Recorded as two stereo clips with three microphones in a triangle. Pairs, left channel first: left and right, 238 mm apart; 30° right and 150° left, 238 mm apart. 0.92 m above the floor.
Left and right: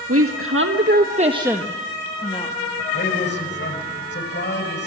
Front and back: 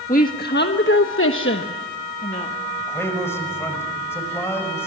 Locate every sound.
0.1 s a woman speaking: 85° right, 1.6 m; by 2.6 s 25° left, 1.8 m
2.8 s a man speaking: 50° left, 5 m